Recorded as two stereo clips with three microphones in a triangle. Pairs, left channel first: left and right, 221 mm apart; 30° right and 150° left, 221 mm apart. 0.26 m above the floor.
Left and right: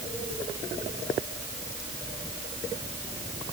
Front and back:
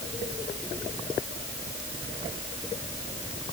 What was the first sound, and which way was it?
Only background noise.